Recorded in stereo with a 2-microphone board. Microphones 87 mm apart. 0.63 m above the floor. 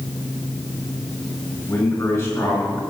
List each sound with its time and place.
1.7 s a man speaking: 40° left (ahead or behind), 4 m